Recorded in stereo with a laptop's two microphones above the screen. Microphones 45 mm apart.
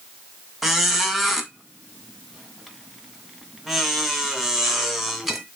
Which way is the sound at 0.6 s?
5° right (ahead or behind).